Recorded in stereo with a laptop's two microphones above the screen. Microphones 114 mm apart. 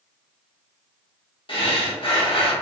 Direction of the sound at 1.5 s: 50° left (ahead or behind).